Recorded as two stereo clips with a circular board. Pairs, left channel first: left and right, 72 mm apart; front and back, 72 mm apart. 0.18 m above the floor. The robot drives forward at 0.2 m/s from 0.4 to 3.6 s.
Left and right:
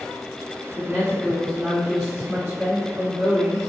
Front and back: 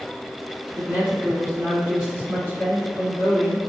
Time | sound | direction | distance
0.7 | a woman speaking | 145° right | 1.6 m